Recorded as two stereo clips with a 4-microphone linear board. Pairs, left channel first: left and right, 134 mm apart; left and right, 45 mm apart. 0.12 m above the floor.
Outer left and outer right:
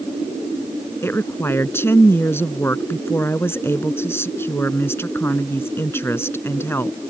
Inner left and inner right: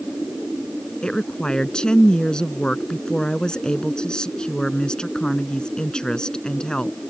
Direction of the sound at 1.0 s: 20° left (ahead or behind).